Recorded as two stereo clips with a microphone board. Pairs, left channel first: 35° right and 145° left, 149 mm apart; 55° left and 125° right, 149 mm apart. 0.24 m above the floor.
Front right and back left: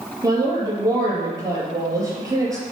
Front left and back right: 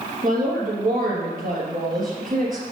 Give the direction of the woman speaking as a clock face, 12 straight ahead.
5 o'clock.